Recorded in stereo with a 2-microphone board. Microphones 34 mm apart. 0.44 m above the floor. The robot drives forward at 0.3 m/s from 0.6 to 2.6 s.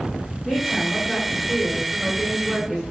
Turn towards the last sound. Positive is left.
turn(degrees=15)  # may be behind; listen again after turning